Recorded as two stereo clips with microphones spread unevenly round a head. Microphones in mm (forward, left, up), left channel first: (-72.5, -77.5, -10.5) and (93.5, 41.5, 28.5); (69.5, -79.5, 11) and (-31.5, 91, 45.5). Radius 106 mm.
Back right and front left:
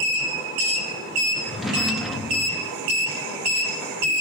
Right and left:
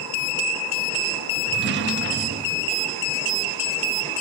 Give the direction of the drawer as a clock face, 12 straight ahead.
8 o'clock.